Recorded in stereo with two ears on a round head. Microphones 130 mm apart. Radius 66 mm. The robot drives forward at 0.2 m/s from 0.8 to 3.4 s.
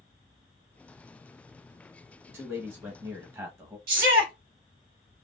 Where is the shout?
70° right (ahead or behind), 2 m.